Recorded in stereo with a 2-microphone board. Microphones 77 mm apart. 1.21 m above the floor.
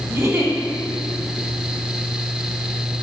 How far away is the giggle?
About 1.4 m.